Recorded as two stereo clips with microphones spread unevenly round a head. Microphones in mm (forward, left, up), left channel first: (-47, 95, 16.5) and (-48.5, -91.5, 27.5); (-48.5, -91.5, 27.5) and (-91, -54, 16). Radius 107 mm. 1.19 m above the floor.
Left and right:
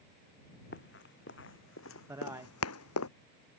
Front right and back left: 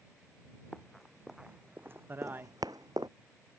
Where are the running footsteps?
45° left; by 3.1 s 75° left.